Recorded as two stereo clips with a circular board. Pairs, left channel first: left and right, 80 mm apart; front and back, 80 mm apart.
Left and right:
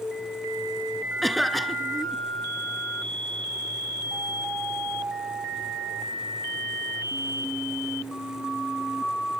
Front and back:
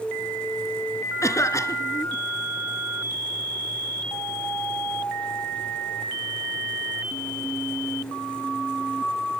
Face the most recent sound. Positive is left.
turn(degrees=0)